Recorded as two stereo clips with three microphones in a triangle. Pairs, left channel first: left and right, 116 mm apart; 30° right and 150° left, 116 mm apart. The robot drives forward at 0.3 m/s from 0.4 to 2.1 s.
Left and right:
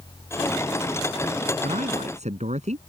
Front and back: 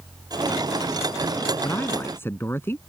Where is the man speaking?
100° right.